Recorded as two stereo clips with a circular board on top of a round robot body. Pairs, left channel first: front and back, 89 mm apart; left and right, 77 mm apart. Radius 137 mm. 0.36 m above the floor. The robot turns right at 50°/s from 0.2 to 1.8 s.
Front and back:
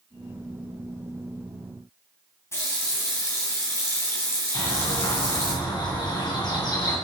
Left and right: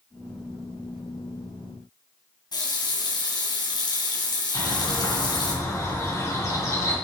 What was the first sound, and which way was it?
A running tap, 60° left.